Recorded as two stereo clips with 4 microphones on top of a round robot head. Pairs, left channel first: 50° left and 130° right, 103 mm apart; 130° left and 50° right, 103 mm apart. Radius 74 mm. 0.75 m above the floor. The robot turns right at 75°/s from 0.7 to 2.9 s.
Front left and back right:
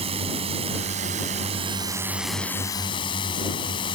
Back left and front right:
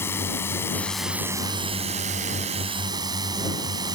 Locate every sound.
0.0 s a drone: 160° right; by 4.0 s 5° left